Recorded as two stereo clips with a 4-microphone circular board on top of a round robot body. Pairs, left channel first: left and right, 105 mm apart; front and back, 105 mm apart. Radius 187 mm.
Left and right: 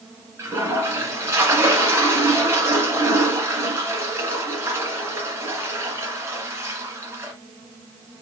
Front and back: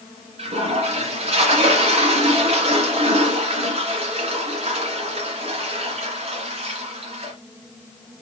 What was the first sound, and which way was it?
A toilet flushing, 155° right.